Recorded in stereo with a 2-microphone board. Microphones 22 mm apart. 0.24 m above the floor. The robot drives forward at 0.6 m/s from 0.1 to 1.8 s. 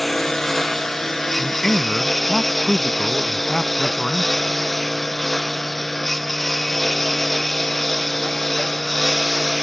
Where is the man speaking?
20° left (ahead or behind).